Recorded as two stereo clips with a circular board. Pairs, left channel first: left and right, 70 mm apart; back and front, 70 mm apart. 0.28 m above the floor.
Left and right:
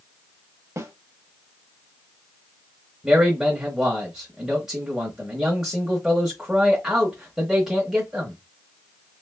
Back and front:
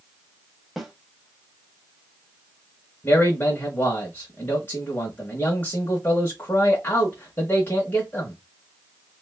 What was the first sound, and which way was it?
A snare drum, 85° right.